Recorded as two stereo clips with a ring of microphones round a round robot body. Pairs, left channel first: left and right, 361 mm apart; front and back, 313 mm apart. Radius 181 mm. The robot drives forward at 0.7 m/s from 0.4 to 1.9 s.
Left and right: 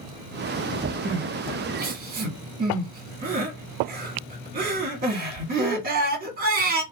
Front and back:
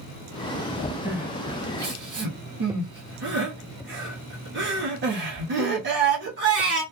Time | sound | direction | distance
1.1 | crying | 95° right | 1.0 m